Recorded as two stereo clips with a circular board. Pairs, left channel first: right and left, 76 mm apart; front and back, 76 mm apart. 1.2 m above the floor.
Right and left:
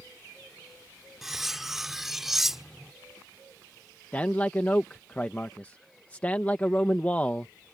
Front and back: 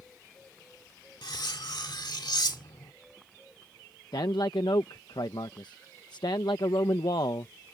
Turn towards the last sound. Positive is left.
turn(degrees=-20)